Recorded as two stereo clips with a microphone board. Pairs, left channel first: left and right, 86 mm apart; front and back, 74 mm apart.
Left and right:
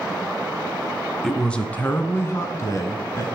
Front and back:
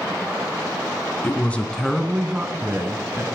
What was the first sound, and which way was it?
A woman speaking, 10° left.